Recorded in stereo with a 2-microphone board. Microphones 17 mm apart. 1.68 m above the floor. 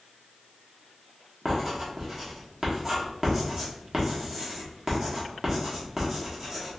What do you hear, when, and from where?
1.4 s writing: 20° right (ahead or behind), 1.2 m